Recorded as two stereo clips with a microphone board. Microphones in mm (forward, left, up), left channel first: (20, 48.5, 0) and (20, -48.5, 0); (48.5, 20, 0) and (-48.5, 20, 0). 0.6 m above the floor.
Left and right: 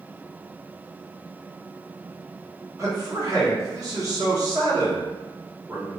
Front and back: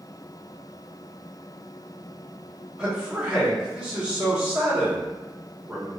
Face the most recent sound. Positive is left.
turn(degrees=-105)